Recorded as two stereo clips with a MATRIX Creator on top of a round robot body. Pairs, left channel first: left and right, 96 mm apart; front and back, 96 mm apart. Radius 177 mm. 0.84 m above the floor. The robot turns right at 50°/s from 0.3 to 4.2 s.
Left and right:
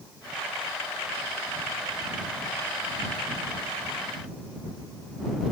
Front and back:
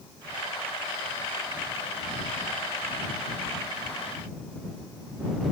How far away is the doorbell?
No doorbell in this recording.